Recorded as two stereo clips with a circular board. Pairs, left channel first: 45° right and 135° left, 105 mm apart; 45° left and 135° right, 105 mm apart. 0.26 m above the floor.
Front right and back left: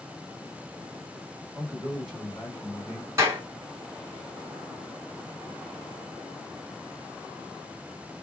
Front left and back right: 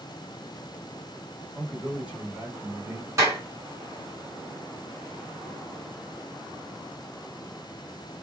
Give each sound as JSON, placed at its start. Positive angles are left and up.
{"t": 1.5, "sound": "a man speaking", "azimuth_deg": 130, "distance_m": 1.5}
{"t": 3.2, "sound": "a clap", "azimuth_deg": 180, "distance_m": 1.7}